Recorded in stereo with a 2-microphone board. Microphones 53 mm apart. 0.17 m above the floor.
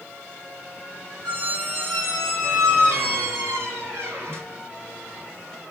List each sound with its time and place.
1.2 s a squeak: 55° right (ahead or behind), 2 m